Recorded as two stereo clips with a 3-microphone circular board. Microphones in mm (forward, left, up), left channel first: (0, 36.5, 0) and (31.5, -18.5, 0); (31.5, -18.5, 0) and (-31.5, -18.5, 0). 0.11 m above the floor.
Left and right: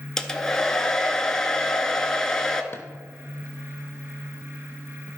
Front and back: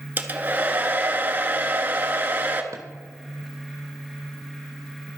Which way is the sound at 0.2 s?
170° right.